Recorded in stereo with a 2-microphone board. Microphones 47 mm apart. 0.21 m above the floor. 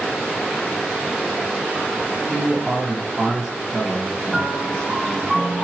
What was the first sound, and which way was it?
A man speaking, 30° right (ahead or behind).